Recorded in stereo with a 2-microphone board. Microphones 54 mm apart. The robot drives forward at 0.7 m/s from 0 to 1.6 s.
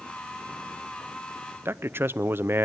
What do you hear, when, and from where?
1.6 s a man speaking: 40° right (ahead or behind), 0.6 m